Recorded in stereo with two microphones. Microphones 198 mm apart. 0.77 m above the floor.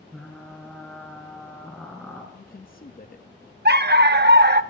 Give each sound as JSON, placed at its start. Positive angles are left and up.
{"t": 0.1, "sound": "frying", "side_deg": 5, "distance_m": 3.0}
{"t": 2.3, "sound": "a man speaking", "side_deg": 45, "distance_m": 0.6}
{"t": 3.6, "sound": "a dog barking", "side_deg": -55, "distance_m": 0.6}